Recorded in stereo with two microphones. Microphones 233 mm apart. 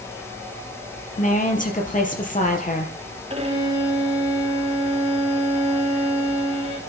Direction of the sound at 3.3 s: 25° right (ahead or behind).